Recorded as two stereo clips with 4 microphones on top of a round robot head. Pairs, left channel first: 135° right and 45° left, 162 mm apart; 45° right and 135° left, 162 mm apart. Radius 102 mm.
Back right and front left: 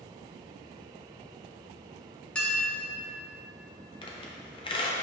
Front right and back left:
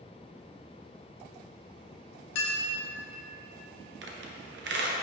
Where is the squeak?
160° left, 0.7 m.